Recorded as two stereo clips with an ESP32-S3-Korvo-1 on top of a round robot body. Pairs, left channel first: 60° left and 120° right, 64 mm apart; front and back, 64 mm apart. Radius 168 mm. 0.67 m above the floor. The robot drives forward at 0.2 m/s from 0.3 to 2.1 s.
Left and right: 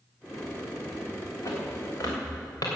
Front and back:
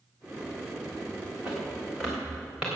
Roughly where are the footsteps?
Left.